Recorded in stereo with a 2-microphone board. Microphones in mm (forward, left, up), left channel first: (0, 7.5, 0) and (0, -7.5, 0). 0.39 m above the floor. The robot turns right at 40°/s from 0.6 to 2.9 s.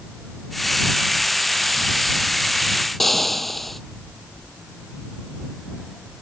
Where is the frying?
10° left (ahead or behind).